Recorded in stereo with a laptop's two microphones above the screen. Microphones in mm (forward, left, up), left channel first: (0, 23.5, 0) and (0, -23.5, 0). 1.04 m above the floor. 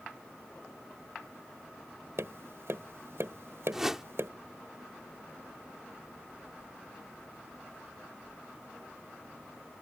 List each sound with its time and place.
2.2 s tapping: 70° right (ahead or behind)
3.7 s a whoosh: 10° right (ahead or behind)